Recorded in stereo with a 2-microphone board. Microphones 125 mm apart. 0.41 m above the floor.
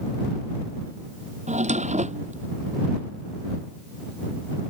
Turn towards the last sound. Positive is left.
turn(degrees=-80)